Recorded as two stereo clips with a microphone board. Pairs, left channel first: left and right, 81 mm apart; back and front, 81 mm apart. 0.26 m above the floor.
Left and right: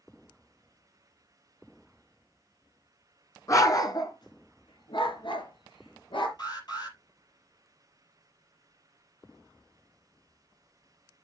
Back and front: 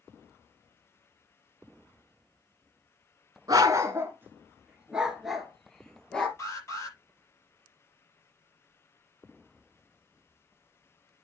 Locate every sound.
3.5 s a dog barking: 40° left, 1.3 m; by 6.3 s 100° left, 2 m
6.4 s an alarm: 125° left, 6 m